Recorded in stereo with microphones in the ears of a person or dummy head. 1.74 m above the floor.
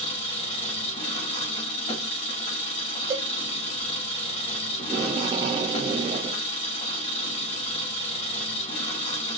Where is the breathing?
I don't hear breathing.